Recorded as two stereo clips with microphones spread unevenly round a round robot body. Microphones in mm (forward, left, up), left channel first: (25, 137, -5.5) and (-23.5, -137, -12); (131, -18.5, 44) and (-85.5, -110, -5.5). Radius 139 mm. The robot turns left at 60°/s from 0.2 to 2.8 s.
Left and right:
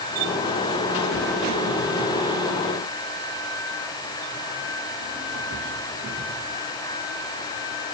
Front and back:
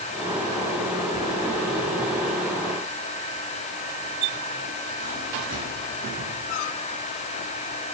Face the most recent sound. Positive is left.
No sound to turn to.